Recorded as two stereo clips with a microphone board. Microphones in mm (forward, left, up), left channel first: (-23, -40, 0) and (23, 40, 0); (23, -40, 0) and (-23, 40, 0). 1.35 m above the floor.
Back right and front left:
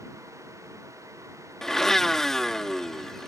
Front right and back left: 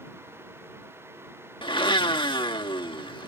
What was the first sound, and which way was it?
A blender, 35° right.